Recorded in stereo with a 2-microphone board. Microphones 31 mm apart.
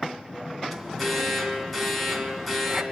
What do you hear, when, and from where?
0.7 s an alarm: 5° left (ahead or behind), 2.5 m